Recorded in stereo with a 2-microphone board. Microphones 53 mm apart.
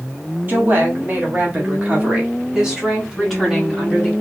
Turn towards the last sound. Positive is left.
turn(degrees=0)  # may be behind; listen again after turning